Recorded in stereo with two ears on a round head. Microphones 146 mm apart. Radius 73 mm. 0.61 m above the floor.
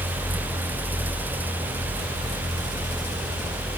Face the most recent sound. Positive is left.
No sound to turn to.